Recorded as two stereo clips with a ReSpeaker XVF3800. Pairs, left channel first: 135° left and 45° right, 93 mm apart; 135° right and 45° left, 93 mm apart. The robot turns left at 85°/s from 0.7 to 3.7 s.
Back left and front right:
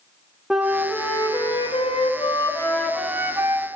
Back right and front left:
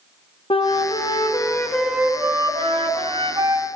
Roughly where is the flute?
Behind right.